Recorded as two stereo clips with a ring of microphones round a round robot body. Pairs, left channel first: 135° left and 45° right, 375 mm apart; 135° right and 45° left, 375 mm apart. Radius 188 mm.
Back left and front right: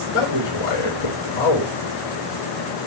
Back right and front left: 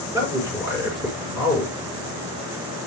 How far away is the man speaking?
About 4.5 m.